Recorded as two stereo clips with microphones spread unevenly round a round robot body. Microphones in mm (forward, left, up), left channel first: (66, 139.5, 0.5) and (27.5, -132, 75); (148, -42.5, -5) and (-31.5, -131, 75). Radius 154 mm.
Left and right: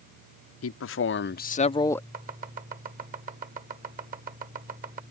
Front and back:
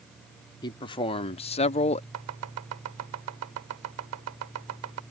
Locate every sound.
0.6 s a man speaking: 80° left; by 2.0 s 10° left
2.1 s chopping: 165° right